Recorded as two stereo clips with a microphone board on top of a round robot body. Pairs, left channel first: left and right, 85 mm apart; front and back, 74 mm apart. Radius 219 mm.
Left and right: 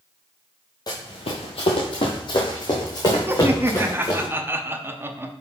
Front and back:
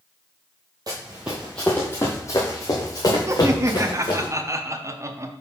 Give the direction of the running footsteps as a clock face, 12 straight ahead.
7 o'clock.